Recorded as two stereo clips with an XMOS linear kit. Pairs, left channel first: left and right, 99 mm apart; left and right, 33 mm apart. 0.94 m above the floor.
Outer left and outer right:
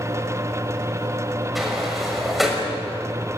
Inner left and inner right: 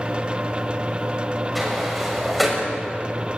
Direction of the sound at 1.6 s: Centre (ahead or behind).